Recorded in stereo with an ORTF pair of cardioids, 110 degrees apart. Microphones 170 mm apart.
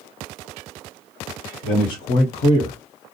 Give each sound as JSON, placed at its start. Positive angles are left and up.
{"t": 1.6, "sound": "a man speaking", "azimuth_deg": 65, "distance_m": 1.0}